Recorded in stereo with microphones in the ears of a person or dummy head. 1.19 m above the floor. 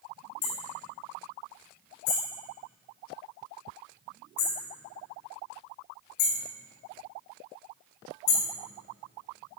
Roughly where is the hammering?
Left.